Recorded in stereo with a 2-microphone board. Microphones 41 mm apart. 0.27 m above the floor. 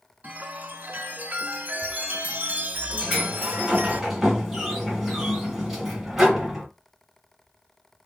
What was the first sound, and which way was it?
A chime, 40° right (ahead or behind).